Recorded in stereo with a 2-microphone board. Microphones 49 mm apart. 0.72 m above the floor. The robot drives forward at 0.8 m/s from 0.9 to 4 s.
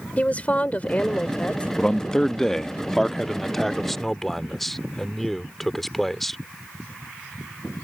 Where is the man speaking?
15° left (ahead or behind); by 6.4 s 5° left (ahead or behind).